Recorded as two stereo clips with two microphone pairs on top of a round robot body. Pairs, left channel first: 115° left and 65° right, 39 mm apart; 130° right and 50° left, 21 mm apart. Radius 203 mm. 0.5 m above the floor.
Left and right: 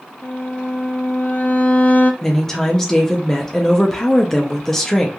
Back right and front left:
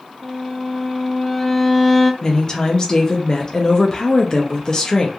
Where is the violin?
155° left, 0.7 m.